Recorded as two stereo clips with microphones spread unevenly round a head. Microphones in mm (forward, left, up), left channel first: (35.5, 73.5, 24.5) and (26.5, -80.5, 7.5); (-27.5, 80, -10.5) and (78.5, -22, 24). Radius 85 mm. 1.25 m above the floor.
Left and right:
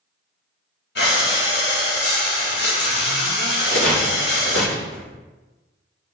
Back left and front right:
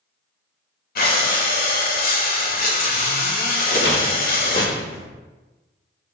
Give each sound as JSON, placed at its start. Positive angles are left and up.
{"t": 0.9, "sound": "breathing", "azimuth_deg": 115, "distance_m": 2.0}
{"t": 3.7, "sound": "a rattle", "azimuth_deg": 110, "distance_m": 4.0}